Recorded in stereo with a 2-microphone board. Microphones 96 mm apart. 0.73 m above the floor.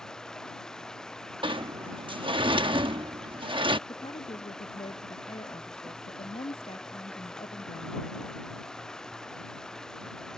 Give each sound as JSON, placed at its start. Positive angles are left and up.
{"t": 0.0, "sound": "running water", "side_deg": 5}
{"t": 1.4, "sound": "a sliding door", "side_deg": -60}
{"t": 3.9, "sound": "a woman speaking", "side_deg": 80}